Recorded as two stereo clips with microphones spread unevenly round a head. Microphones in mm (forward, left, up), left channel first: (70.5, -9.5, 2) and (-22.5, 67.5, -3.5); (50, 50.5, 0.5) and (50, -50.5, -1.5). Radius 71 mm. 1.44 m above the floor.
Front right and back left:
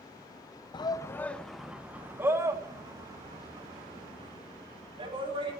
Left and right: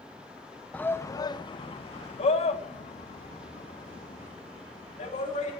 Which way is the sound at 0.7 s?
15° left.